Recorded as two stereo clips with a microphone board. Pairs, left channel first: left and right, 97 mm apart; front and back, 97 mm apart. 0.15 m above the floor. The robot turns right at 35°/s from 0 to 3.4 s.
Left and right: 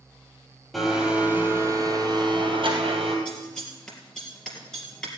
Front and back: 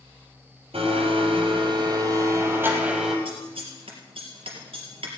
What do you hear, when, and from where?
0.7 s a blender: straight behind, 3.5 m; by 3.1 s 95° right, 3.5 m
3.2 s scissors: 170° left, 3.5 m; by 5.1 s 175° left, 3.5 m